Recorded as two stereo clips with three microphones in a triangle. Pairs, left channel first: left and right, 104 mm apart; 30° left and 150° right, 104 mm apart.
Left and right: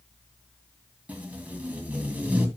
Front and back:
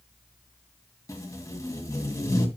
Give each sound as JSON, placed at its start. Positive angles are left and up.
{"t": 1.1, "sound": "tape being pulled", "azimuth_deg": -20, "distance_m": 2.0}